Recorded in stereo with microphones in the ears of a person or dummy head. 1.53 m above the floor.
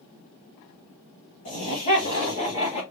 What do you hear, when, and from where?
1.4 s laughter: 35° left (ahead or behind), 1.6 m